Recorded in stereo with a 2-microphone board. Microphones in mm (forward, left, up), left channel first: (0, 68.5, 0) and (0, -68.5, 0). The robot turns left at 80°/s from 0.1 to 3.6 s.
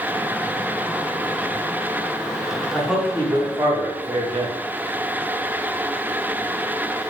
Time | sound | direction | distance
2.7 | a man speaking | 5° left | 1.3 m